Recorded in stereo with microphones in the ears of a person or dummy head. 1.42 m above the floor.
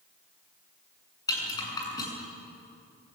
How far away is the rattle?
About 8 m.